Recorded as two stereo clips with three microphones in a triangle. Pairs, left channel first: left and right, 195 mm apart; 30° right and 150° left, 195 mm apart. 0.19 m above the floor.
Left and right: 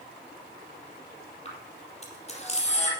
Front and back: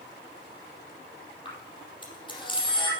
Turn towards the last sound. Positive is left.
turn(degrees=35)